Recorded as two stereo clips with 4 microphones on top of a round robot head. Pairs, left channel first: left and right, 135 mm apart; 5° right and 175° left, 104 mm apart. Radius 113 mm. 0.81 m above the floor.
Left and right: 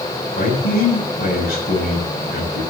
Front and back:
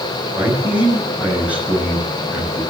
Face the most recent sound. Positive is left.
turn(degrees=95)